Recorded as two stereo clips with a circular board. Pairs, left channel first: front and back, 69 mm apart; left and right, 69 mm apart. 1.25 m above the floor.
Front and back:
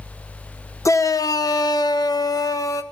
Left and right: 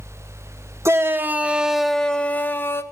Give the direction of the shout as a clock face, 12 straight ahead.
1 o'clock.